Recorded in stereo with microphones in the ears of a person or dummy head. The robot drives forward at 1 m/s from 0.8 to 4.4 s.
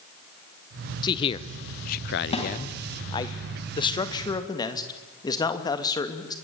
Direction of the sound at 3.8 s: 25° left (ahead or behind).